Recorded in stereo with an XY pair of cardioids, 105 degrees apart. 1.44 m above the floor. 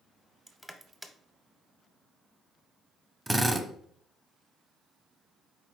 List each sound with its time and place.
0.5 s crushing: 5° right, 0.7 m
3.3 s a drill: 10° right, 0.6 m